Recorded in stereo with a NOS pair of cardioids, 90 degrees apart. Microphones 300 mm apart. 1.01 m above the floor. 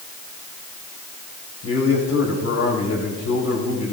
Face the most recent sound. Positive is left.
turn(degrees=65)